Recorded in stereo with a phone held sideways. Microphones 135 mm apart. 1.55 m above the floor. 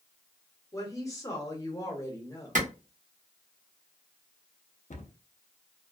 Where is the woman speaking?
25° left (ahead or behind), 1.0 m.